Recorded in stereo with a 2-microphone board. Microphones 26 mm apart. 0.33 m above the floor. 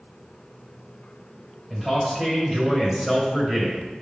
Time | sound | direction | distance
1.7 | a man speaking | 10° right (ahead or behind) | 1.4 m